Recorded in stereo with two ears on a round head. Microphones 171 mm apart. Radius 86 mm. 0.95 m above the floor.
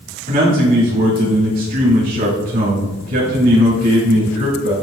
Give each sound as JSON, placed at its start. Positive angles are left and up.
{"t": 0.3, "sound": "a man speaking", "side_deg": -45, "distance_m": 2.5}